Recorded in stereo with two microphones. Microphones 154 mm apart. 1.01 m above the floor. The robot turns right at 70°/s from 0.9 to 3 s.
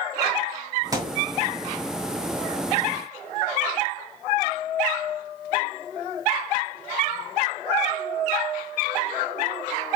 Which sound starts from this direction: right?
A thud, at 0.9 s.